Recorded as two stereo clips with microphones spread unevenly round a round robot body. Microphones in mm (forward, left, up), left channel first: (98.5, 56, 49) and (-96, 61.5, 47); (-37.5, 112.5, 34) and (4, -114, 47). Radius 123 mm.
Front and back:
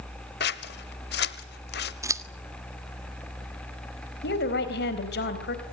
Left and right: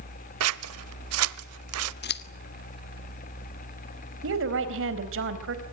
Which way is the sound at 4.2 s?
45° right.